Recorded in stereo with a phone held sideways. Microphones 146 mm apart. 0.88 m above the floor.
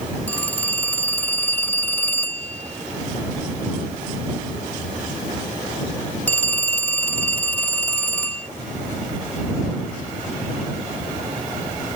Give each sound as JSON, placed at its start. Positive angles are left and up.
{"t": 0.3, "sound": "a phone ringing", "side_deg": 10}